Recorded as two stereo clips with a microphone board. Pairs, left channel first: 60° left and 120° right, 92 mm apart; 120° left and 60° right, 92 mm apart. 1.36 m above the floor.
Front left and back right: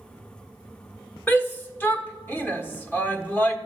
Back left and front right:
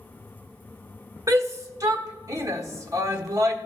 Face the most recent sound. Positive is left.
turn(degrees=-10)